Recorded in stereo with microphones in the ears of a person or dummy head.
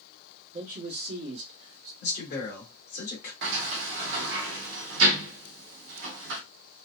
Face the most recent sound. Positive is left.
turn(degrees=-60)  # may be behind; listen again after turning